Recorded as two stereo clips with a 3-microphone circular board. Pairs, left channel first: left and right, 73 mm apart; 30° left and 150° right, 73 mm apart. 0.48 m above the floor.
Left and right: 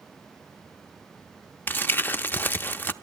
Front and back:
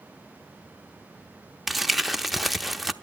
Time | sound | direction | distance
1.7 | crumpling | 120° left | 0.7 m